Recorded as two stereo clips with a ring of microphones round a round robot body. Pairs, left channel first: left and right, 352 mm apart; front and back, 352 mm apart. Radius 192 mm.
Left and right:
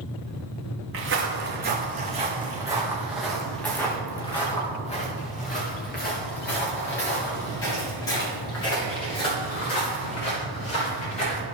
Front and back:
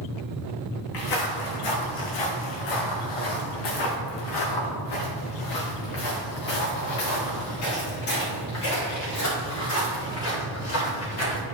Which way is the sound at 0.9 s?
35° right.